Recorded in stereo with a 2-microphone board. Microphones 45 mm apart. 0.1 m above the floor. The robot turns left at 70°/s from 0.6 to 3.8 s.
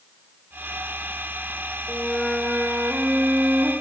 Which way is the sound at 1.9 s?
5° left.